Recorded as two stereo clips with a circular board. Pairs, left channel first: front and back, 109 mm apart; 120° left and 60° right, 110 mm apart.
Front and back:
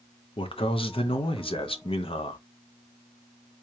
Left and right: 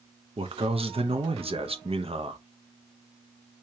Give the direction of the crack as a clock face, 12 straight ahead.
No crack in this recording.